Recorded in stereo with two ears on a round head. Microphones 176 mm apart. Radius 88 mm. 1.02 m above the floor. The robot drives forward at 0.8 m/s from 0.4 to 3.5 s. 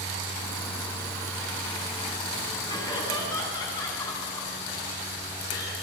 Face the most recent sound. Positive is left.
turn(degrees=20)  # may be behind; listen again after turning